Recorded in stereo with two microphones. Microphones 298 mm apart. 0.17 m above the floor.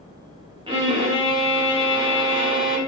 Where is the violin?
20° right (ahead or behind), 0.6 m.